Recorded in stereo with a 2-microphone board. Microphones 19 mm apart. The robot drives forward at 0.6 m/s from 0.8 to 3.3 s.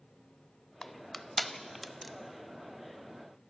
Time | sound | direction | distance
0.8 | crushing | 25° left (ahead or behind) | 0.5 m